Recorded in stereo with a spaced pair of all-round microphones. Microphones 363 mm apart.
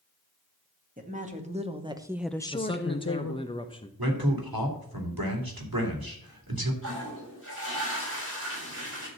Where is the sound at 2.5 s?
15° left (ahead or behind), 0.8 m.